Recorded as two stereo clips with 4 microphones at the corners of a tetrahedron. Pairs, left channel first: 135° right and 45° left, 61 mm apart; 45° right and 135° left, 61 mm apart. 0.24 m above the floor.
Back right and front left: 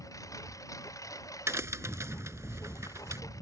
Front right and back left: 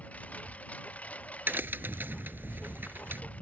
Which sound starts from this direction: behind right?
A lawn mower, at 0.0 s.